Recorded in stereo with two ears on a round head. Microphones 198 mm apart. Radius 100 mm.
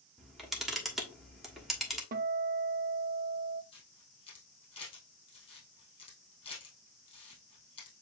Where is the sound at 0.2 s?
Centre (ahead or behind), 1.2 m.